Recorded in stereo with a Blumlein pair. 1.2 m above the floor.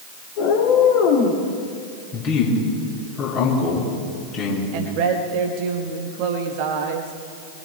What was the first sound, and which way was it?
A cat meowing, 45° left.